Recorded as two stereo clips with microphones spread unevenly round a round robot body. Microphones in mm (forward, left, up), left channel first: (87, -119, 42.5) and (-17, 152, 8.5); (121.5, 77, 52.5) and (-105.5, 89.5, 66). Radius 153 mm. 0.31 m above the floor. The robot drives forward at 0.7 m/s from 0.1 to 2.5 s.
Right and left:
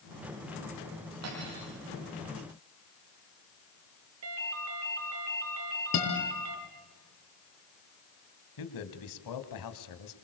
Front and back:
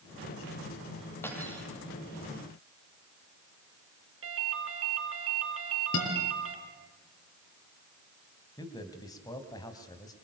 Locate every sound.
1.2 s cutlery clinking: 75° left, 8 m; by 1.7 s 80° left, 8 m
4.2 s a ringtone: 155° left, 3.5 m
5.9 s a guitar: 35° right, 7 m
8.6 s a man speaking: 75° right, 3 m